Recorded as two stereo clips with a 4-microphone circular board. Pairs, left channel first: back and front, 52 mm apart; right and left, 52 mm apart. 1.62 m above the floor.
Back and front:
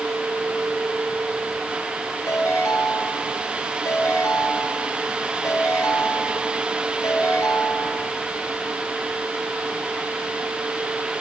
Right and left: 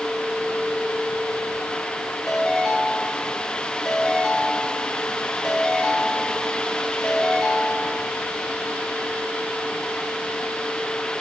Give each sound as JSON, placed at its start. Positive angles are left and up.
{"t": 2.3, "sound": "a ringtone", "azimuth_deg": -175, "distance_m": 7.0}